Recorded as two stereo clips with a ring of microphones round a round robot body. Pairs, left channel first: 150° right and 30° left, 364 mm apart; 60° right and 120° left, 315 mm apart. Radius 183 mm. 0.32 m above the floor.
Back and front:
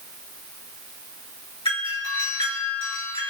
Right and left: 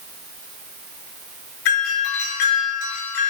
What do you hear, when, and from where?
1.6 s a doorbell: 75° right, 5.5 m